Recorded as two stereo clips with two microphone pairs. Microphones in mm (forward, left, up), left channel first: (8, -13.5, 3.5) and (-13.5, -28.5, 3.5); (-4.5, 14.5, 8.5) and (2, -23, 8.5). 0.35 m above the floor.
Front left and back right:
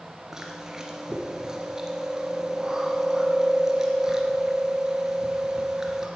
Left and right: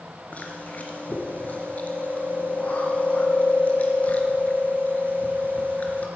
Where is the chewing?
150° left, 2.5 m.